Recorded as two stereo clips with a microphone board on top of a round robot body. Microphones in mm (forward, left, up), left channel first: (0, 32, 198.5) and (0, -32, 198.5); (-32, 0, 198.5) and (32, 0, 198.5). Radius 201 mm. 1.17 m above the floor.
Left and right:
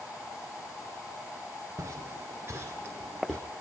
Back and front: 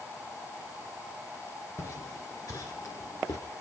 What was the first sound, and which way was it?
Footsteps, 135° right.